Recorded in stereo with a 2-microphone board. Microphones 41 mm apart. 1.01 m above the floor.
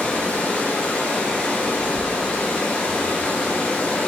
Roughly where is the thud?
Centre.